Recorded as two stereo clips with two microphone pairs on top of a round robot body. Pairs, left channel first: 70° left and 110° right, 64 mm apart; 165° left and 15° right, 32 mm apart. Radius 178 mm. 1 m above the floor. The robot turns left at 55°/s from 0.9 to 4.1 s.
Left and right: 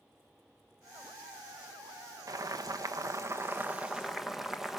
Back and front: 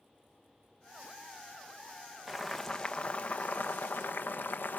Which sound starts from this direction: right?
Boiling, at 2.3 s.